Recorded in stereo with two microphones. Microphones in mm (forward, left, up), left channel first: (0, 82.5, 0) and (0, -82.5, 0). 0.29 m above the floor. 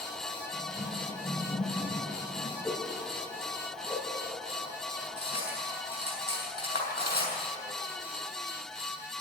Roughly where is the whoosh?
Centre.